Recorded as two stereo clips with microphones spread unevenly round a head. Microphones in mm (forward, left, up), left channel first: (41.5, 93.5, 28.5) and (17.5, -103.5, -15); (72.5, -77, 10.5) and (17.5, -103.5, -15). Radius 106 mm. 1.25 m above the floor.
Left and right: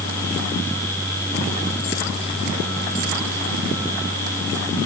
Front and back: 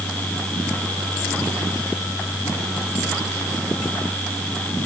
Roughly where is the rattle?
I don't hear a rattle.